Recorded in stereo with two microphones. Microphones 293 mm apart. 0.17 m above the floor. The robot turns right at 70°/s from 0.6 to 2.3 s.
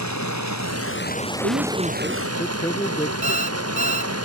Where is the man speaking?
50° right; by 3.1 s 15° left.